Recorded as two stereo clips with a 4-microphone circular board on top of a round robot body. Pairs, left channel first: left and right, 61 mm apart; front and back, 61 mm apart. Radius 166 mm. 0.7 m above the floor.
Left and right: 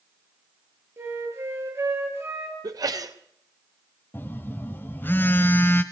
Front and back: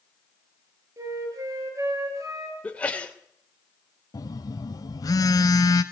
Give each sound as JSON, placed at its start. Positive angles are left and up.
{"t": 1.0, "sound": "a flute", "azimuth_deg": -140, "distance_m": 8.5}
{"t": 2.6, "sound": "a sneeze", "azimuth_deg": -70, "distance_m": 3.0}
{"t": 4.1, "sound": "a phone buzzing", "azimuth_deg": 30, "distance_m": 0.9}